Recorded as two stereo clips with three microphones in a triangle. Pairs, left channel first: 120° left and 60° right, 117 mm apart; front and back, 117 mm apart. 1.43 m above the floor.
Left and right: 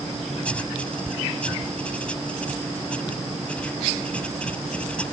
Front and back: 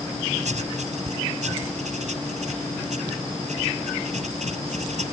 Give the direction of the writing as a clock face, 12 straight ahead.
5 o'clock.